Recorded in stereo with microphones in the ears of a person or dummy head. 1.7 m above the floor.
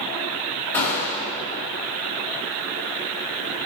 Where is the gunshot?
15° left (ahead or behind), 2 m.